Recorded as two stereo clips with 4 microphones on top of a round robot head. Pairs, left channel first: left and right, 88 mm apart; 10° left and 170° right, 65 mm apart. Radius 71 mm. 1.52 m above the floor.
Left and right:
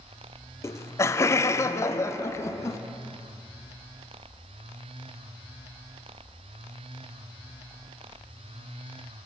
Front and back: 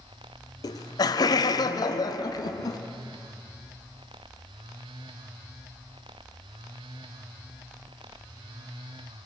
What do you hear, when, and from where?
0.6 s laughter: 30° left, 0.6 m